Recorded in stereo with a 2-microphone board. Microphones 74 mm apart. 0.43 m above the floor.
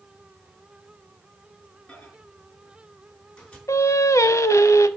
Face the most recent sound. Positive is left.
turn(degrees=45)  # may be behind; listen again after turning